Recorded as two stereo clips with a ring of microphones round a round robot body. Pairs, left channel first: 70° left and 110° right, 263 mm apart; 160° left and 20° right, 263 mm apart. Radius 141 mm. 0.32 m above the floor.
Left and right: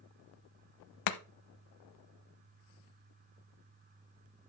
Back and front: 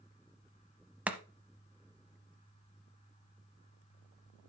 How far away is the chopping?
About 0.8 m.